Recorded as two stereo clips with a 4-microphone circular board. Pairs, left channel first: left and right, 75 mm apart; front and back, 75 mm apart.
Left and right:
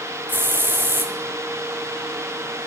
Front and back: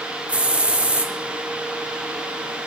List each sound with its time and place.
0.3 s a hiss: 125° right, 0.9 m